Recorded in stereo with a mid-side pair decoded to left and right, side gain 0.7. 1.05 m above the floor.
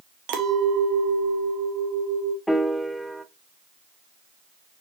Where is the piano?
5° left, 0.7 m.